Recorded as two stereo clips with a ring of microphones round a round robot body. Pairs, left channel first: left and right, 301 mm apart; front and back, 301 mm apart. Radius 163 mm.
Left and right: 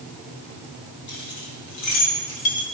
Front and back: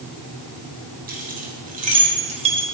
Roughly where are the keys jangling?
Behind left.